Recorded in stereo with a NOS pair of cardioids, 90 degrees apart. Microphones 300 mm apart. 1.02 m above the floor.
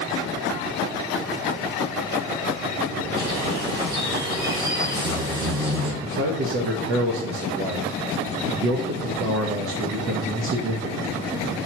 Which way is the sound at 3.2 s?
45° right.